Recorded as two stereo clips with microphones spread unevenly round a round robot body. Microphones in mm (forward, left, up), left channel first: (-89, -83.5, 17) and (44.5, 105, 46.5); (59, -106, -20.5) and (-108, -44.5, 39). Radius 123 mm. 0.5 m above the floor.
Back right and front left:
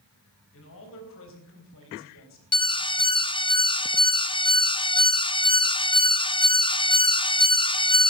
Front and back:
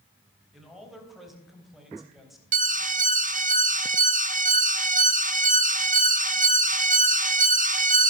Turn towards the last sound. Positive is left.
turn(degrees=-155)